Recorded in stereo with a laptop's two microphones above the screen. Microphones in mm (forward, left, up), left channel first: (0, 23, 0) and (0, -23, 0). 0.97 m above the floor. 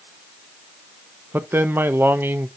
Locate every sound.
1.3 s a man speaking: 50° right (ahead or behind), 0.7 m